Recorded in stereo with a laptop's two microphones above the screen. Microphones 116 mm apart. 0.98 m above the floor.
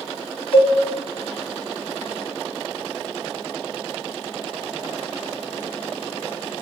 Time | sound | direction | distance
0.5 | a cowbell | 50° left (ahead or behind) | 1.2 m